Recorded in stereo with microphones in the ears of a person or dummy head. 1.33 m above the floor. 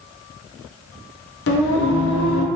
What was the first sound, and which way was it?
Singing, 65° left (ahead or behind).